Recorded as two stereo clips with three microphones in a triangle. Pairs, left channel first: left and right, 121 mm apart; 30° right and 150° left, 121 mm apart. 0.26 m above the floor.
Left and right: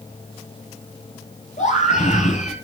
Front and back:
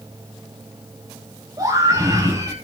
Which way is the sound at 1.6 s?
90° left.